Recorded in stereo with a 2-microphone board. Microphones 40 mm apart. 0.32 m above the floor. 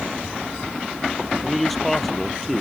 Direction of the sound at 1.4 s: 5° left (ahead or behind).